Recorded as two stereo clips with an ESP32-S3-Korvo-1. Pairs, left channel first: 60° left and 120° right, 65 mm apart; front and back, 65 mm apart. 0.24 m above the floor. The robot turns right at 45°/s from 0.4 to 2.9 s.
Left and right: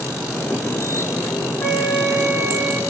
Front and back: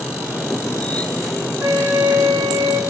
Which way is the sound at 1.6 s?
125° left.